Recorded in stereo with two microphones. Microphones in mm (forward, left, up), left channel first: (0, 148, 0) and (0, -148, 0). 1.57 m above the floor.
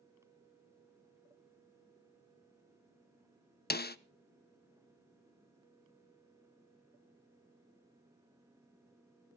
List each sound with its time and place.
3.7 s a snare drum: 35° left (ahead or behind), 0.5 m